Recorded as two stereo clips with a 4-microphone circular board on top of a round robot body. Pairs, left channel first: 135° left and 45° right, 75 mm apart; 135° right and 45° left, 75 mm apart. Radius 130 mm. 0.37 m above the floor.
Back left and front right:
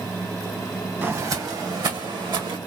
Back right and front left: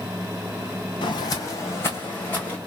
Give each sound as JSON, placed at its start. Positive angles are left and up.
{"t": 1.0, "sound": "footsteps", "azimuth_deg": -110, "distance_m": 0.8}